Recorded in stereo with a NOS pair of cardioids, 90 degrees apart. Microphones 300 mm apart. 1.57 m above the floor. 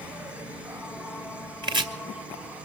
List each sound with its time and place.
0.0 s an insect: 5° right, 1.1 m
1.6 s chopping: 15° right, 2 m